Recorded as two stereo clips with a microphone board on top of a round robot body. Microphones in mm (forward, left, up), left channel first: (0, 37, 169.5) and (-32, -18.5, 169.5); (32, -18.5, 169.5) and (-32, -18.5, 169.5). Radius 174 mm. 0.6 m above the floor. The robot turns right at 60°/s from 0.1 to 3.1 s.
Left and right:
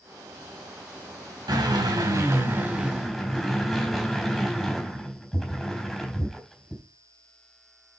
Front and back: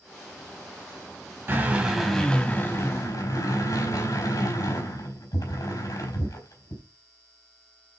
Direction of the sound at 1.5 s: 130° right.